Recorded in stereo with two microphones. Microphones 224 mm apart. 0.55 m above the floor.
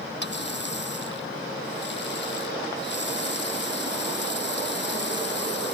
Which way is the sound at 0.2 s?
50° left (ahead or behind).